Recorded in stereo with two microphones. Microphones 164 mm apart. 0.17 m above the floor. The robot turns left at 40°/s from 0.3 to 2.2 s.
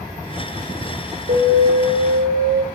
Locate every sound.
1.3 s an alarm: 85° right, 3.5 m; by 2.6 s 125° right, 3.5 m